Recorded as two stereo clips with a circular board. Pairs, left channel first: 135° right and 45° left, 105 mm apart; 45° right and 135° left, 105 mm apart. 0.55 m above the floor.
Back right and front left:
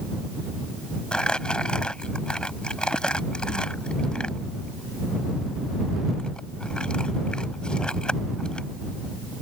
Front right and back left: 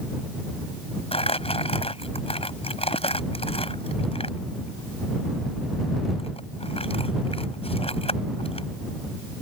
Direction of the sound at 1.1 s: 55° right.